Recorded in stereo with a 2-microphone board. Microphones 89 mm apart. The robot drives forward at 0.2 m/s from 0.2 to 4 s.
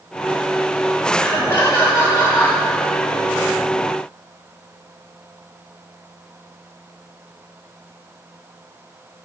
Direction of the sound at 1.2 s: 30° left (ahead or behind).